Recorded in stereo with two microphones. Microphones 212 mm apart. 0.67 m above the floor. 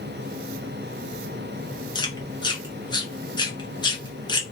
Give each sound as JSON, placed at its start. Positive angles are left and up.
{"t": 1.9, "sound": "chewing", "side_deg": 20, "distance_m": 0.8}